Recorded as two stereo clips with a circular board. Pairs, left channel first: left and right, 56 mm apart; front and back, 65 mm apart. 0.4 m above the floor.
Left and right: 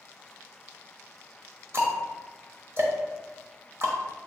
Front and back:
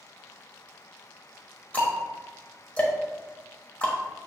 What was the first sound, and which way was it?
Ticking, 65° right.